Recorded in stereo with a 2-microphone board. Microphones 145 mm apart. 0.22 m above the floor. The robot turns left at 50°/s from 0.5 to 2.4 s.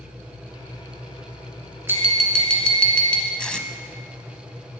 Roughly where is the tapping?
Centre.